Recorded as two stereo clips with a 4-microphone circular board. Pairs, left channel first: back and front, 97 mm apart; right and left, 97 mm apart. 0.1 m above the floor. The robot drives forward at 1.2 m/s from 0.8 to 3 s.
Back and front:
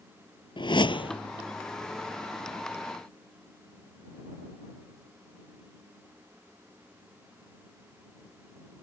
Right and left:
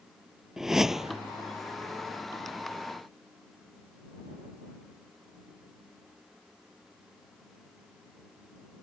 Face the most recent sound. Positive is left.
turn(degrees=180)